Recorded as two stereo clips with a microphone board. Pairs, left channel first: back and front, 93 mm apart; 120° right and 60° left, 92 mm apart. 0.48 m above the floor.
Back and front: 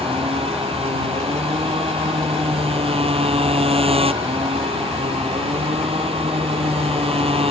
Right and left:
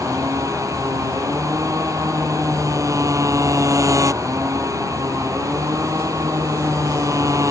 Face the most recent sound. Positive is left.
turn(degrees=5)